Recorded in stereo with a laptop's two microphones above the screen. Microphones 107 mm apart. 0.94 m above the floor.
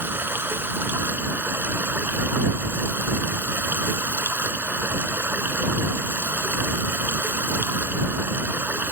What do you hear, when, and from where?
0.0 s running water: 20° right (ahead or behind)